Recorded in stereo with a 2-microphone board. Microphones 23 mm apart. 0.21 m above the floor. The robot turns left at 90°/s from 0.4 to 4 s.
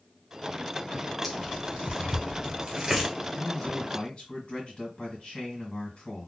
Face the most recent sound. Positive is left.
turn(degrees=110)